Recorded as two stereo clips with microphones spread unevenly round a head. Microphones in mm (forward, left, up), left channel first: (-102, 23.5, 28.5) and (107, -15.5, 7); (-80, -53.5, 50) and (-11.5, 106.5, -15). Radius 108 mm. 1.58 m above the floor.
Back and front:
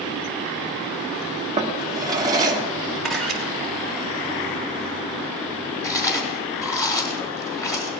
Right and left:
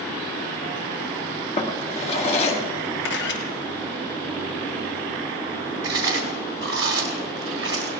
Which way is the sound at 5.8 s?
95° left.